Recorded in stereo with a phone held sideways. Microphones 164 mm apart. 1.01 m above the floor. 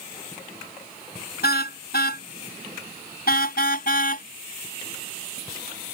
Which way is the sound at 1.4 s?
75° left (ahead or behind).